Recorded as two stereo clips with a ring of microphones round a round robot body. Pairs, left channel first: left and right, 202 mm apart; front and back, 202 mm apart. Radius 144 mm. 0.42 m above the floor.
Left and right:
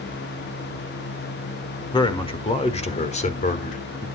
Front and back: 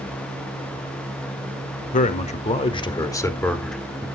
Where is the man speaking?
30° left, 1.5 m; by 4.1 s 100° left, 1.3 m.